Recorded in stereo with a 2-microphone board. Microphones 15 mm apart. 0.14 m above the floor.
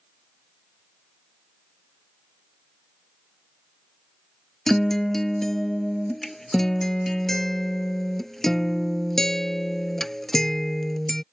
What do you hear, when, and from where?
4.7 s a guitar: 25° left (ahead or behind)